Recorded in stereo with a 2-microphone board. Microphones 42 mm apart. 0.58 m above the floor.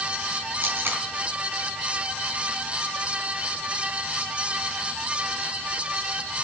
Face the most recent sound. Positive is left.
turn(degrees=-55)  # may be behind; listen again after turning